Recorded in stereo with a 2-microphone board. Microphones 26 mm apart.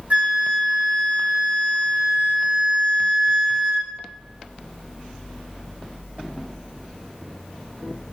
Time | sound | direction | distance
0.1 | a flute | 60° right (ahead or behind) | 1.1 m